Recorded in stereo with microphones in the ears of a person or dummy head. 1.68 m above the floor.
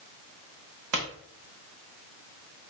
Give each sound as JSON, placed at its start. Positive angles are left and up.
{"t": 0.9, "sound": "a pop", "side_deg": -60, "distance_m": 0.8}